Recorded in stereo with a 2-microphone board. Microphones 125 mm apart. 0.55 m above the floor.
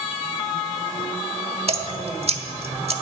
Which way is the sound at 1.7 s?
55° right (ahead or behind).